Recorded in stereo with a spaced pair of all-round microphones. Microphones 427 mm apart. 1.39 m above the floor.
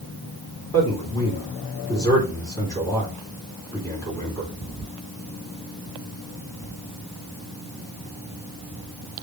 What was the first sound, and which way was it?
A man speaking, 10° left (ahead or behind).